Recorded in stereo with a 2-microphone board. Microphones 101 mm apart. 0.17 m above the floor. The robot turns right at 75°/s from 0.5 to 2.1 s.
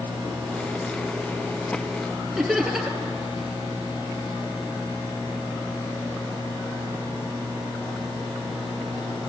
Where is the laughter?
5° right (ahead or behind), 3 m.